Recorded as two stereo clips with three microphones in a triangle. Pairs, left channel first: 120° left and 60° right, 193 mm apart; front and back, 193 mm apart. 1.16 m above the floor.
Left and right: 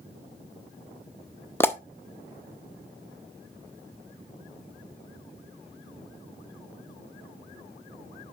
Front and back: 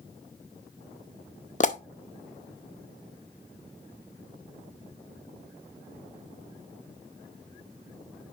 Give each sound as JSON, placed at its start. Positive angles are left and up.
{"t": 1.6, "sound": "a pop", "azimuth_deg": 40, "distance_m": 0.7}